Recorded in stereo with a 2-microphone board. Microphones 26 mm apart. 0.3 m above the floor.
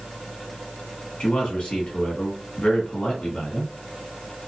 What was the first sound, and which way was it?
A man speaking, 45° left (ahead or behind).